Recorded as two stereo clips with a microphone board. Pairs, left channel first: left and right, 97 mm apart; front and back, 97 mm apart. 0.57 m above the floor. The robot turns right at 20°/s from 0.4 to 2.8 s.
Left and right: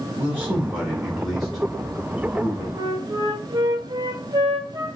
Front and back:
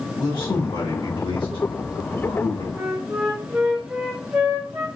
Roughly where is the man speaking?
Ahead.